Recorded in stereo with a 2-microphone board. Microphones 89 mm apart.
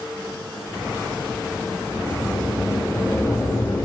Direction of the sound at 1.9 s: 40° left (ahead or behind).